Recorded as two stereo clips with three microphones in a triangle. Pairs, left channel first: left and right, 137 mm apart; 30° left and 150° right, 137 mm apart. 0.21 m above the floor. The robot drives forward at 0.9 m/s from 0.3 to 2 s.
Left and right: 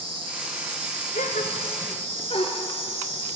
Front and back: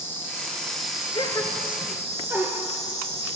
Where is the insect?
45° right, 1.6 m; by 3.4 s 110° right, 1.2 m.